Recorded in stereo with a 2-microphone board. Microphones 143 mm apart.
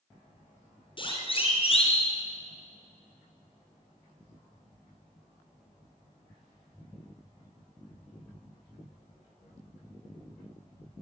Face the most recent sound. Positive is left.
turn(degrees=45)  # may be behind; listen again after turning